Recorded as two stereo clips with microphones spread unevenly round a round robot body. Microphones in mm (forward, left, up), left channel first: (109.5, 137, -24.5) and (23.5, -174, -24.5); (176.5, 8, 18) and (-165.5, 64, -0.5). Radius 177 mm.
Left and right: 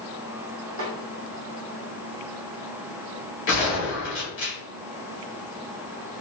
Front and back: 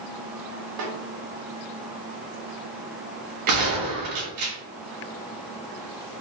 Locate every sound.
0.8 s a snare drum: 155° right, 0.8 m
3.5 s a gunshot: 135° left, 1.3 m